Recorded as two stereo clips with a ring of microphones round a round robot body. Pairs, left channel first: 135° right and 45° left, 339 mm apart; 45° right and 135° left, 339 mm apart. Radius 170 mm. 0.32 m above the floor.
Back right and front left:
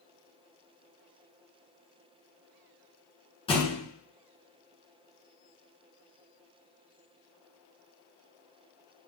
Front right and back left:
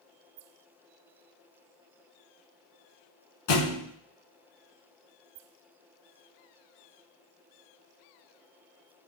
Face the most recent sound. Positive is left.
turn(degrees=-60)